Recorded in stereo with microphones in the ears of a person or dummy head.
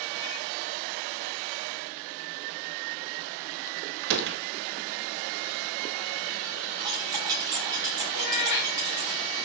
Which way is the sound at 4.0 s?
60° right (ahead or behind).